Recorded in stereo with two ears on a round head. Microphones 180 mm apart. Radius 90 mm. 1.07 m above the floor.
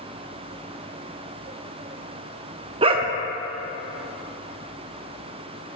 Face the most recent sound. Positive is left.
turn(degrees=-25)  # may be behind; listen again after turning